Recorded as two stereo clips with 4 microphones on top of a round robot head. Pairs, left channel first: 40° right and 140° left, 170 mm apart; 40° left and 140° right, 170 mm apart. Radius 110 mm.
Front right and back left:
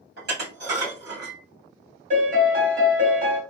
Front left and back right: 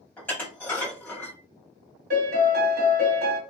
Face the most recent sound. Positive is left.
turn(degrees=-175)